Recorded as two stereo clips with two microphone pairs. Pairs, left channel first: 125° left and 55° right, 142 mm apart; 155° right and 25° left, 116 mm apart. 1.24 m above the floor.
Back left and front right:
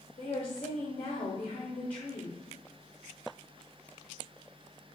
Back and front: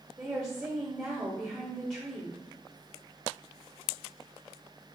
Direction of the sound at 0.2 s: 85° left.